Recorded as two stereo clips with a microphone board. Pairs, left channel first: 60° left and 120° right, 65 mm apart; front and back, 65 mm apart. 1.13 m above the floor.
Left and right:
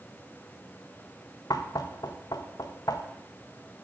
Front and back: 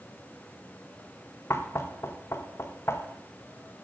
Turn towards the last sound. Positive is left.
turn(degrees=45)